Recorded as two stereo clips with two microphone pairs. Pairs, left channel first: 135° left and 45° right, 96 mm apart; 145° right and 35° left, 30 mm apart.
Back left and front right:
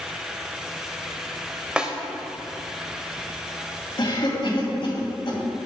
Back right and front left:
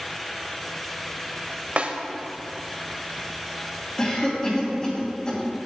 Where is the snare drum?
35° left, 0.7 m.